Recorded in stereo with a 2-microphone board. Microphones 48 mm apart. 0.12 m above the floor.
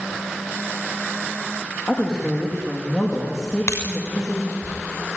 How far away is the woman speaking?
About 5.5 m.